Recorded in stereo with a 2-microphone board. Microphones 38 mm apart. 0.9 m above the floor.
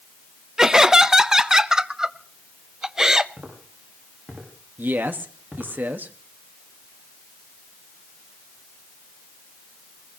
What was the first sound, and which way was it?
Laughter, 15° right (ahead or behind).